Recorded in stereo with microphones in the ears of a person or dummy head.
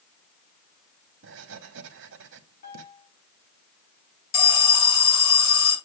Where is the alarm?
80° left, 3.5 m.